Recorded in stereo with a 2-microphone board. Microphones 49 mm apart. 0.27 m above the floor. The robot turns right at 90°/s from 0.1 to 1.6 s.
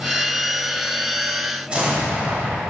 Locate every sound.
1.7 s an explosion: 25° right (ahead or behind), 0.9 m